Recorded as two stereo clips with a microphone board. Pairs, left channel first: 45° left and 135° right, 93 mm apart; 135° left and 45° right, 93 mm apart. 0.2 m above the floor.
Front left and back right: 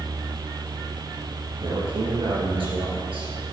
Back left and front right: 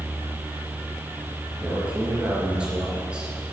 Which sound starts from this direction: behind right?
A man speaking, at 1.6 s.